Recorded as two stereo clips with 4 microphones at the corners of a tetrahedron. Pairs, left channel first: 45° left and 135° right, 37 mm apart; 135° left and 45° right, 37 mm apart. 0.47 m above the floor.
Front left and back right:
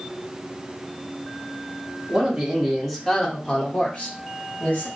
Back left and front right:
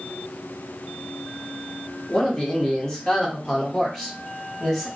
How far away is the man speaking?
About 1.3 m.